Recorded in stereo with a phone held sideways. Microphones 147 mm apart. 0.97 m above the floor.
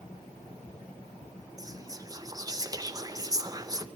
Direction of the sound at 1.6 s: 25° right (ahead or behind).